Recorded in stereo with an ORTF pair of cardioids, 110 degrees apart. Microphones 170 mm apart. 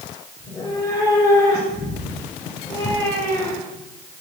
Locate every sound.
0.4 s a cat meowing: 15° left, 4 m; by 3.9 s 20° left, 1.7 m